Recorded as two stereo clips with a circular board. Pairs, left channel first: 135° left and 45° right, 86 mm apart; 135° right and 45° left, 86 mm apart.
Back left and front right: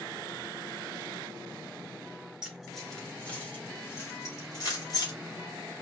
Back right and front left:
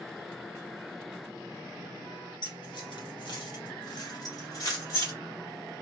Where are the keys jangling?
125° right, 1.4 m; by 5.1 s 175° left, 2 m.